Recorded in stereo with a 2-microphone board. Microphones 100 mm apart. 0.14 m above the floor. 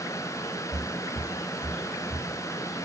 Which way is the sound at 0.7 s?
25° right (ahead or behind).